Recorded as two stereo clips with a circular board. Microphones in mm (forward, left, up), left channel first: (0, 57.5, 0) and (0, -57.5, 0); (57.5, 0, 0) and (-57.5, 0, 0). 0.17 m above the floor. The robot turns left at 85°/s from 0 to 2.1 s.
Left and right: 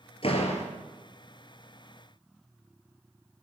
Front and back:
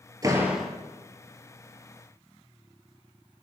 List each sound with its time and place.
0.2 s a door slam: 125° left, 2 m; by 0.7 s 80° left, 2 m